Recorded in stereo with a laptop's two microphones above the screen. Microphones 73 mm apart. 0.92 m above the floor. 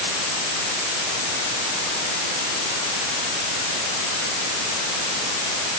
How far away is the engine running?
I don't hear an engine running.